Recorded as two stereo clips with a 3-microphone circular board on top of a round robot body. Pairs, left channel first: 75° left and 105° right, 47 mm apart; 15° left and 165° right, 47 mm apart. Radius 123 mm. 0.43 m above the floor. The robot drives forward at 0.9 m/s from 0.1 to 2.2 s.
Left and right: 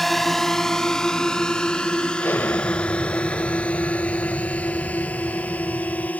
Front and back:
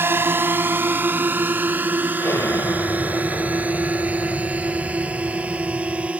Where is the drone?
160° left; by 6.2 s 135° left.